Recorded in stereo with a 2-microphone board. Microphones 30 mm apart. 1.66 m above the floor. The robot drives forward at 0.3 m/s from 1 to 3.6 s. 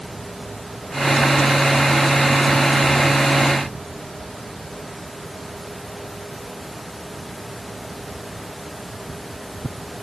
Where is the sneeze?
I don't hear a sneeze.